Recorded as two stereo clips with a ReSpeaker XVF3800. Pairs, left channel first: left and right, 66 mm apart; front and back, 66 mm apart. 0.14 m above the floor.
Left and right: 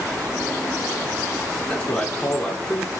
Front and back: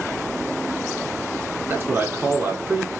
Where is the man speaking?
160° left, 1.7 m.